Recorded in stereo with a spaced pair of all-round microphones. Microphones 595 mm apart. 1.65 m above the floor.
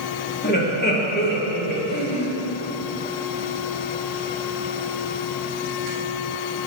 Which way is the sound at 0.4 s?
15° left (ahead or behind).